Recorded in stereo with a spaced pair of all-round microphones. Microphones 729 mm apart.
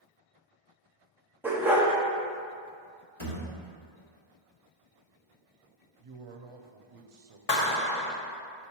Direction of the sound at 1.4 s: 5° right (ahead or behind).